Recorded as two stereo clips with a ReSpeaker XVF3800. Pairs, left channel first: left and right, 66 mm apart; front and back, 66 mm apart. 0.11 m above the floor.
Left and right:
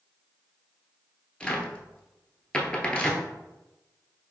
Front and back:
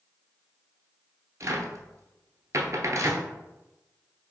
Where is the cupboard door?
165° left, 0.6 m.